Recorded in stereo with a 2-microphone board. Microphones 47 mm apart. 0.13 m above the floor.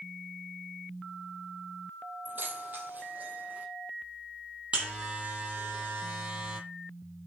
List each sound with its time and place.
2.2 s keys jangling: 45° right (ahead or behind), 3 m; by 3.7 s 35° right (ahead or behind), 5 m
4.7 s a buzzer: 25° right (ahead or behind), 5 m